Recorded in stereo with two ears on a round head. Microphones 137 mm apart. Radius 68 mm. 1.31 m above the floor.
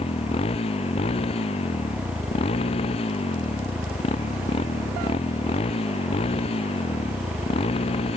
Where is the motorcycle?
40° left (ahead or behind).